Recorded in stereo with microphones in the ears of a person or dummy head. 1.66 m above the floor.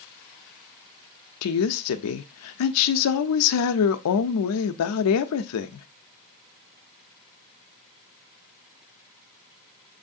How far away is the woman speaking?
About 0.6 m.